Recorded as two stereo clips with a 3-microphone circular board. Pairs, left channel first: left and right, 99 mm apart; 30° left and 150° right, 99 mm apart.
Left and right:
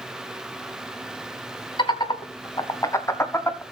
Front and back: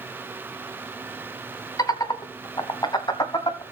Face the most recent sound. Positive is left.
turn(degrees=30)